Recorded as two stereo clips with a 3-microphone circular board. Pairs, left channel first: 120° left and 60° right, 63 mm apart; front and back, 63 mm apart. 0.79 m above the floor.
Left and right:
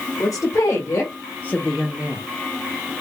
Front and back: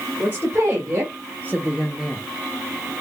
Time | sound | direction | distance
0.2 | a woman speaking | 125° left | 1.6 m